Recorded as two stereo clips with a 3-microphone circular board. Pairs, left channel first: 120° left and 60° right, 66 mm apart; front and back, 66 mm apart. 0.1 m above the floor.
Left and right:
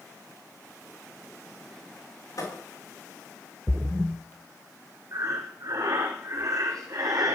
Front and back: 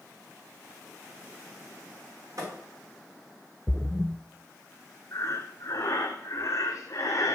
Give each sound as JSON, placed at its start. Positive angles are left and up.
{"t": 2.4, "sound": "a thud", "azimuth_deg": 145, "distance_m": 4.0}
{"t": 3.7, "sound": "a splash", "azimuth_deg": -120, "distance_m": 0.7}
{"t": 5.1, "sound": "breathing", "azimuth_deg": -40, "distance_m": 1.7}